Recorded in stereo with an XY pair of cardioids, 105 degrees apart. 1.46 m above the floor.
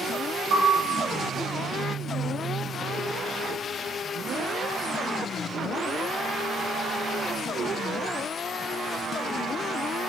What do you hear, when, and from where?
0.5 s a piano: 65° right, 1.1 m